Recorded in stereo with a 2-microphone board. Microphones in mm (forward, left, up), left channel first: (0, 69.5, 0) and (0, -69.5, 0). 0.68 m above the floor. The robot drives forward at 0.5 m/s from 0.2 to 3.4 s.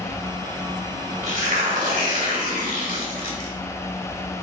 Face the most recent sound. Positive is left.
turn(degrees=-75)  # may be behind; listen again after turning